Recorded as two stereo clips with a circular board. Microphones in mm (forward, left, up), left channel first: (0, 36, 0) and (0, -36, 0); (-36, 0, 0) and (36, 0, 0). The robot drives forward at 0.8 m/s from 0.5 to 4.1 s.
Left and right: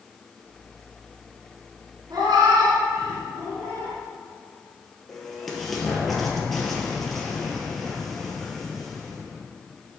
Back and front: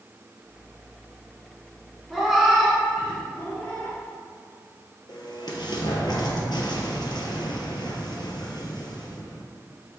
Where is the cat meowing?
80° right, 2.5 m; by 4.0 s 120° right, 2.5 m.